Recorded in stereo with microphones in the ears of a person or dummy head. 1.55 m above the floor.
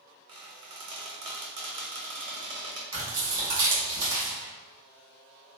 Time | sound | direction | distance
0.3 | a squeak | 25° right (ahead or behind) | 0.6 m
2.9 | tearing paper | 20° right (ahead or behind) | 1.7 m